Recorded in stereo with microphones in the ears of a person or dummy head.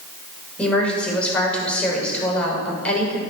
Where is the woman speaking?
Centre (ahead or behind), 6 m.